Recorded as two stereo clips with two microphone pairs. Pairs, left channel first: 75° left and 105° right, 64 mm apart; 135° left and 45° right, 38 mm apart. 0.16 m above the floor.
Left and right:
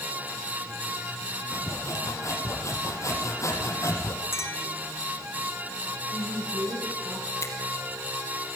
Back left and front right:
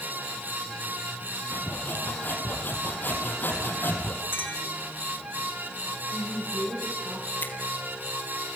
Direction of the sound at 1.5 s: 110° left.